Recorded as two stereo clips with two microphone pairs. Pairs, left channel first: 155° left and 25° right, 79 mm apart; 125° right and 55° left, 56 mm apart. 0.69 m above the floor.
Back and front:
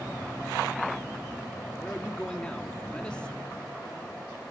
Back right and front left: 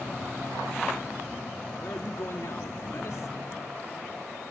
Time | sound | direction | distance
1.8 | a man speaking | 130° right | 1.1 m